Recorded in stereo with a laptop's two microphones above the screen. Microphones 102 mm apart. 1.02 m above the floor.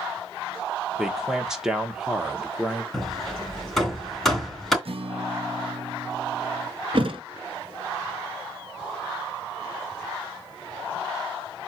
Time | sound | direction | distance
1.0 | a man speaking | 5° right (ahead or behind) | 0.9 m
2.9 | hammering | centre (ahead or behind) | 3 m
4.8 | a guitar | 60° right (ahead or behind) | 1.0 m
6.9 | a thud | 60° right (ahead or behind) | 1.6 m